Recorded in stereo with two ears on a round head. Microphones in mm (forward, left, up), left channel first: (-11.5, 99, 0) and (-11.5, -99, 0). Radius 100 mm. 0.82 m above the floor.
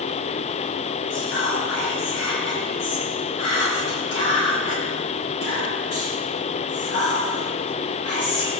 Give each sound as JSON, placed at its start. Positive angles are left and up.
{"t": 1.1, "sound": "whispering", "side_deg": 65, "distance_m": 6.0}